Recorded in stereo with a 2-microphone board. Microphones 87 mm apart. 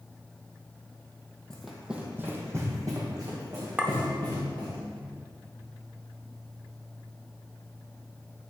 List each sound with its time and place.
1.5 s running footsteps: 10° left (ahead or behind), 1.1 m; by 4.8 s 60° right (ahead or behind), 4 m
3.8 s a clink: 15° right (ahead or behind), 0.7 m